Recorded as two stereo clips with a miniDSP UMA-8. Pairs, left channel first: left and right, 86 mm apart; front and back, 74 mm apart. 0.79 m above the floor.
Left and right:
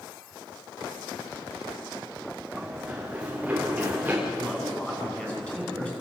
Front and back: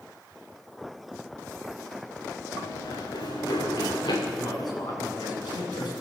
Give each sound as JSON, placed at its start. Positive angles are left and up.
{"t": 2.5, "sound": "running footsteps", "azimuth_deg": -10, "distance_m": 6.5}
{"t": 4.3, "sound": "a man speaking", "azimuth_deg": 15, "distance_m": 8.5}